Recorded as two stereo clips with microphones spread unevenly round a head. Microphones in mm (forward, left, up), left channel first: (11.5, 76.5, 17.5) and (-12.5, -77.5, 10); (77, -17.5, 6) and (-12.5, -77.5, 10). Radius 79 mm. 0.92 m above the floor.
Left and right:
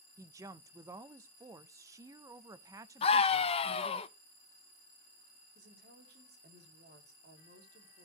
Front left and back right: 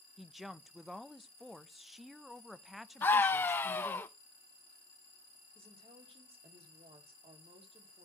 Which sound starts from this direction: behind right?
A woman speaking, at 5.5 s.